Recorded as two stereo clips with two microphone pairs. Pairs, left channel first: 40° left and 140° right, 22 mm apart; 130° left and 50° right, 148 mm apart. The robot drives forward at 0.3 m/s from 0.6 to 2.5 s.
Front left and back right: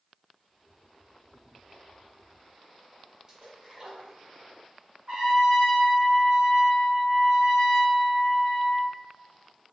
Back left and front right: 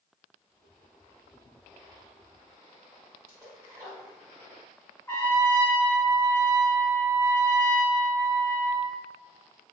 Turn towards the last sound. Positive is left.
turn(degrees=-160)